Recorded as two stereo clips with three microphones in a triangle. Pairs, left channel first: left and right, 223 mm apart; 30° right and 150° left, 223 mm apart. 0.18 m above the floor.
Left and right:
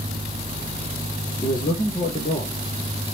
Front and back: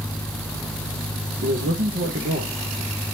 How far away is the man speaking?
About 3.5 m.